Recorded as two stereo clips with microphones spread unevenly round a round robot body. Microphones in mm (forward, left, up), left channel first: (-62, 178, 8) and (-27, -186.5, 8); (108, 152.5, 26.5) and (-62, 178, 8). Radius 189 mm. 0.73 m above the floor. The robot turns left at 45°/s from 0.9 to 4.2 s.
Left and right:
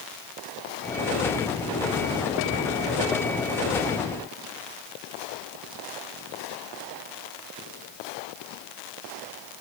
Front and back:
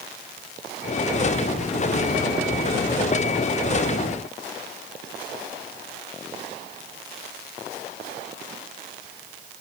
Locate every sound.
Only background noise.